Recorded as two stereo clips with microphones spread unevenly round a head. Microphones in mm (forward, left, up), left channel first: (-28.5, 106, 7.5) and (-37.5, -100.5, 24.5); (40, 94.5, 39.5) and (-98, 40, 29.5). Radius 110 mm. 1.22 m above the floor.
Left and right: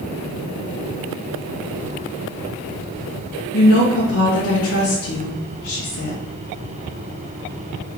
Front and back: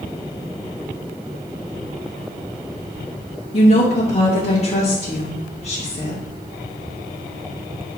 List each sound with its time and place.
3.5 s a woman speaking: 70° left, 2 m